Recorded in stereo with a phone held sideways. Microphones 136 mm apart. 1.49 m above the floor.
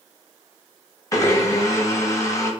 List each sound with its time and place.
1.1 s a blender: 25° left (ahead or behind), 0.9 m